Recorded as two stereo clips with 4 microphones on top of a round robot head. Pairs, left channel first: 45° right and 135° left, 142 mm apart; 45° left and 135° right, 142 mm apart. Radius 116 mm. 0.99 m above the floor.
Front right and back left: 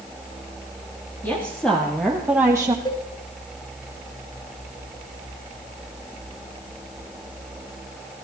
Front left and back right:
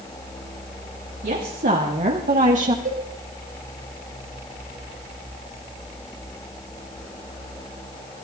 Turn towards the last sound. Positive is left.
turn(degrees=-110)